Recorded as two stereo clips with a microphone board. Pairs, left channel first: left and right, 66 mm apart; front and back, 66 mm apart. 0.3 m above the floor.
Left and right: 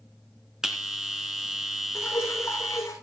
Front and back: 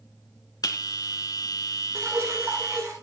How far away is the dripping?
About 8.5 m.